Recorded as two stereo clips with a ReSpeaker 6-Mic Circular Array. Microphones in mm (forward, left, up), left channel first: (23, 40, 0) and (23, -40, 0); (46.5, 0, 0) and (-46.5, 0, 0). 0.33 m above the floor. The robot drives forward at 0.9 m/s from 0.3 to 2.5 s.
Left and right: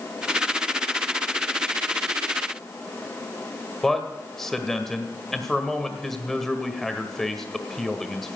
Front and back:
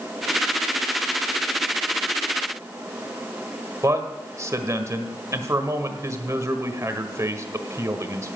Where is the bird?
I don't hear a bird.